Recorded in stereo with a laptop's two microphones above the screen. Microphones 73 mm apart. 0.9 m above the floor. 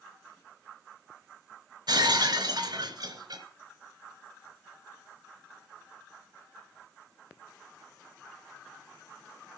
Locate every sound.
1.9 s breaking glass: 70° right (ahead or behind), 3 m